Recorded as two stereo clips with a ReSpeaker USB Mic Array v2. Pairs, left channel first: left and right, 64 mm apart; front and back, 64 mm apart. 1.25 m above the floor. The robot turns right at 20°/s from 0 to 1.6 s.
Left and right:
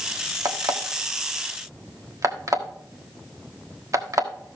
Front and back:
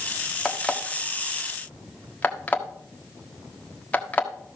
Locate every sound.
0.5 s an alarm clock: 90° right, 1.3 m; by 4.3 s 65° right, 1.3 m